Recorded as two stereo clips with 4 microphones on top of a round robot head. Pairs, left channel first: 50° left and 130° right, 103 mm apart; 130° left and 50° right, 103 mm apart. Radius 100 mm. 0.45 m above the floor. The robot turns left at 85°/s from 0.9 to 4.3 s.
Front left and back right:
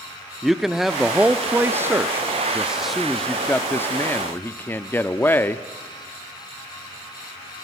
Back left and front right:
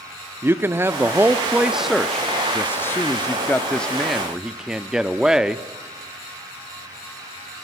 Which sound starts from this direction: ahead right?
A man speaking, at 0.4 s.